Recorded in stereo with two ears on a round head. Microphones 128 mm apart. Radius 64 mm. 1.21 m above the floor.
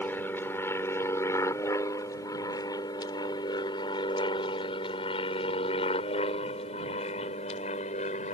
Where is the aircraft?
15° left (ahead or behind); by 8.3 s 50° left (ahead or behind).